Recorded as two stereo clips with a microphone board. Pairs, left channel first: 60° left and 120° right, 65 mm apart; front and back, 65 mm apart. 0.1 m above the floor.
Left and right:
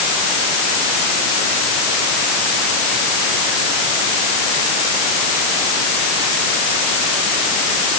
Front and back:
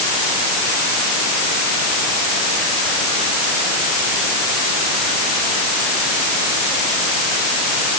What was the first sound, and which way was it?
Only background noise.